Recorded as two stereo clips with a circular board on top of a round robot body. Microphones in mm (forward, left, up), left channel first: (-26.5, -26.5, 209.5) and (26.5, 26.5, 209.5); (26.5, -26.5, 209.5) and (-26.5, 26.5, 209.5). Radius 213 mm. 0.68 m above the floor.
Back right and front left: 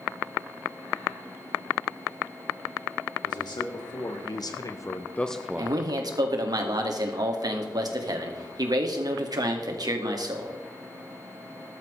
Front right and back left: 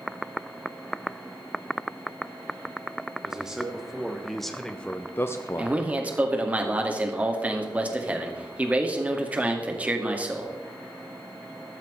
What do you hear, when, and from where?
3.2 s a man speaking: 145° right, 3 m; by 5.8 s 5° right, 1.3 m
5.6 s a man speaking: 65° left, 2.5 m